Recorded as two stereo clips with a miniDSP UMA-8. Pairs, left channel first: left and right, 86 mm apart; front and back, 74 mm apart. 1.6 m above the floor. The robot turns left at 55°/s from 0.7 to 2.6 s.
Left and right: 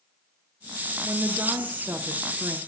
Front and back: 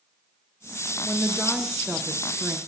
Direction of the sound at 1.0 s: 75° right.